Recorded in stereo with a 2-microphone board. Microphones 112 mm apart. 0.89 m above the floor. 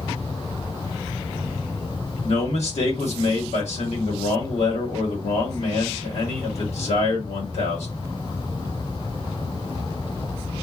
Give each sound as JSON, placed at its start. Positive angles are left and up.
{"t": 2.2, "sound": "a man speaking", "side_deg": 70, "distance_m": 1.4}